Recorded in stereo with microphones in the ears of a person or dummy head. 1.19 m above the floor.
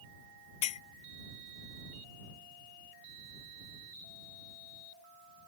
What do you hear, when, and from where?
0.6 s a clink: 30° left (ahead or behind)